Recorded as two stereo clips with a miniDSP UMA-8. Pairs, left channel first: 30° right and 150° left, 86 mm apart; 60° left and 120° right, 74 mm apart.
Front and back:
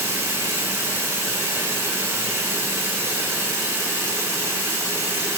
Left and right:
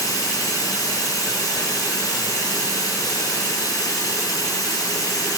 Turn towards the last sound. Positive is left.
turn(degrees=90)